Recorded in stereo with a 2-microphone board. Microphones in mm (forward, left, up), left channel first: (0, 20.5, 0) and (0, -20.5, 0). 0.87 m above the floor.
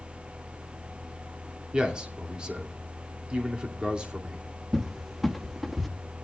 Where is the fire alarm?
No fire alarm in this recording.